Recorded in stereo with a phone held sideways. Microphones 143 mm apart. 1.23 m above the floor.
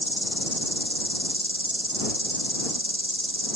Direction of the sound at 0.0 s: 40° left (ahead or behind).